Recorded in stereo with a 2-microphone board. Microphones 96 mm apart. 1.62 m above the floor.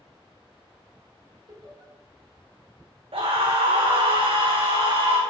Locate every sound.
1.5 s laughter: 55° right (ahead or behind), 3 m
3.1 s a scream: 75° right (ahead or behind), 0.8 m